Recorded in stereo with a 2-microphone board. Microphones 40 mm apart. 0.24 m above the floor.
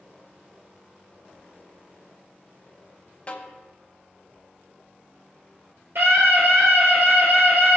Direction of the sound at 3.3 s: 30° left (ahead or behind).